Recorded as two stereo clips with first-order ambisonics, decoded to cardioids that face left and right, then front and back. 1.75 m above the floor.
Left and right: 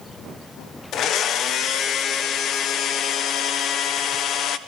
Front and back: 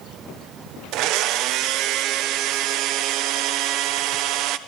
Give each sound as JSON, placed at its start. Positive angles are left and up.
{"t": 0.9, "sound": "a blender", "azimuth_deg": 145, "distance_m": 1.2}